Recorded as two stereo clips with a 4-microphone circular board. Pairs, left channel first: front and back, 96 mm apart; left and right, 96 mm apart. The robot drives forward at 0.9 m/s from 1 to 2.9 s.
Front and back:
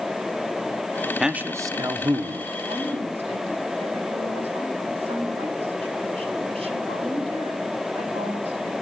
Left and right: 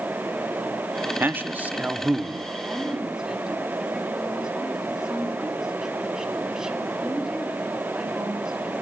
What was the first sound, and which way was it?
A man speaking, 100° right.